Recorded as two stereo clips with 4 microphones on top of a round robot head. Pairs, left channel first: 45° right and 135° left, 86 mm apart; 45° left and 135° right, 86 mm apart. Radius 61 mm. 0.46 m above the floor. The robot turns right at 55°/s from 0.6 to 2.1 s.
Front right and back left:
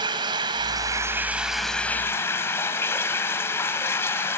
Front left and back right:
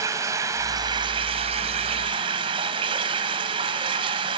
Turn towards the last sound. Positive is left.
turn(degrees=-105)